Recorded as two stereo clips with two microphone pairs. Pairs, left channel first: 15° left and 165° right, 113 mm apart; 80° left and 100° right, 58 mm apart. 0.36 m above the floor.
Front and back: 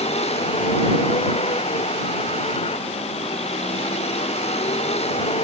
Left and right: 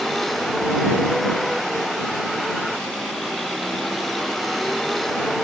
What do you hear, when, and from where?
0.0 s a vehicle: 5° right